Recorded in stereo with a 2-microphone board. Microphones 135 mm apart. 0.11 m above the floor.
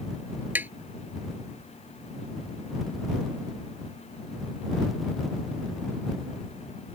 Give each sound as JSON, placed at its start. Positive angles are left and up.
{"t": 0.6, "sound": "tapping", "side_deg": -15}